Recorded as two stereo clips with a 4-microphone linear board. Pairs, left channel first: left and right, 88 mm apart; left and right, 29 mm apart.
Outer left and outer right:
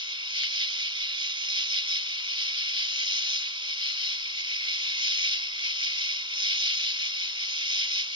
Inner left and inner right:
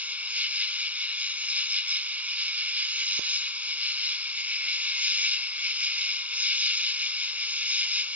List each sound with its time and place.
0.0 s an insect: 70° right (ahead or behind)